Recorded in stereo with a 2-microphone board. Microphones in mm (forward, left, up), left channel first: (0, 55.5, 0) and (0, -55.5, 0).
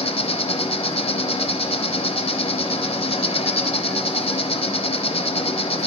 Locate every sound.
0.0 s an insect: 60° left (ahead or behind), 0.9 m